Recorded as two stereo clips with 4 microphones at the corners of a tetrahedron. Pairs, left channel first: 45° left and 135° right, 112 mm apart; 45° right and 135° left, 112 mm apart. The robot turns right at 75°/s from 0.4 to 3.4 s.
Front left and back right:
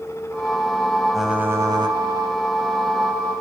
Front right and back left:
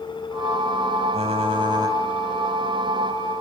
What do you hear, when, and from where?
1.1 s typing on a keyboard: 130° left, 2.5 m; by 2.0 s 165° right, 2.5 m